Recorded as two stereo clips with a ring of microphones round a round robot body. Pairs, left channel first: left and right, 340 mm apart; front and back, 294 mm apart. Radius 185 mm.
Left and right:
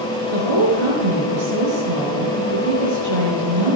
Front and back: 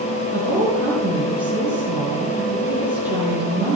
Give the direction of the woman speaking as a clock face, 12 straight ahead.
3 o'clock.